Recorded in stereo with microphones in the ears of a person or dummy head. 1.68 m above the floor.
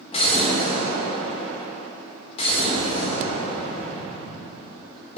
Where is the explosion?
35° left (ahead or behind), 1.6 m.